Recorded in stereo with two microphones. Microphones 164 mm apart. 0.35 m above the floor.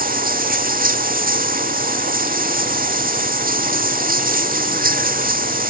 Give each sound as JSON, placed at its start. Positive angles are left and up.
{"t": 0.0, "sound": "running water", "side_deg": -60}